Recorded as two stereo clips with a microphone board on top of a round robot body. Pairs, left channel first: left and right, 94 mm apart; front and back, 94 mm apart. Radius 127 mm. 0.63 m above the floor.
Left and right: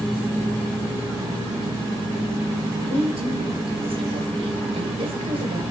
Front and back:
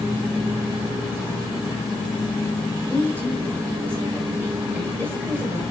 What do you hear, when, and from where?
2.8 s a woman speaking: 115° right, 3 m